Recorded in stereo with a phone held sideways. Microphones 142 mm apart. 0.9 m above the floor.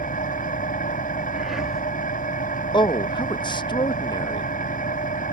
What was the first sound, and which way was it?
An engine running, 85° left.